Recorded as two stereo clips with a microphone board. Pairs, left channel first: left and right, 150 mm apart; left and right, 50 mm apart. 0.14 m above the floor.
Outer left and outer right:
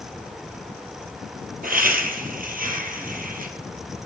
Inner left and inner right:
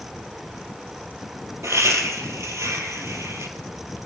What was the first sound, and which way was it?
Laughter, 70° right (ahead or behind).